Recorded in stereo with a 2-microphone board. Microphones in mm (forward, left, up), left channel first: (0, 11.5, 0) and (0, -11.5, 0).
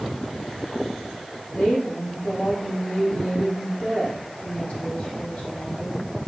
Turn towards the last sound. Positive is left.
turn(degrees=75)  # may be behind; listen again after turning